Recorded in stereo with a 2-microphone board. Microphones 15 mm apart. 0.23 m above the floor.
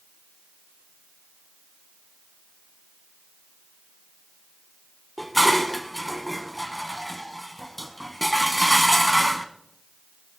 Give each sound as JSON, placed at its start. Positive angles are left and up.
{"t": 5.2, "sound": "dishes clattering", "side_deg": 15, "distance_m": 1.4}